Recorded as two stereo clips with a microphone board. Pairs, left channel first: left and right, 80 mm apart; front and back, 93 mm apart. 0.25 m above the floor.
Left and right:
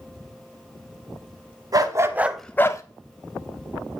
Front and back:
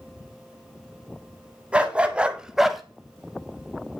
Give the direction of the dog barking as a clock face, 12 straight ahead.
3 o'clock.